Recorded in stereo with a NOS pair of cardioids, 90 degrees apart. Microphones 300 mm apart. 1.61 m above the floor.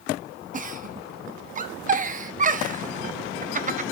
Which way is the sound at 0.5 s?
25° right.